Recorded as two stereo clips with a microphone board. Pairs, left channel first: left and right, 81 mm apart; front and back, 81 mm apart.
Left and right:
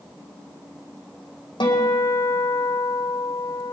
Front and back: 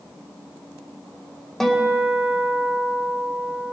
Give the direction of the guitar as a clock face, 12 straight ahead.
9 o'clock.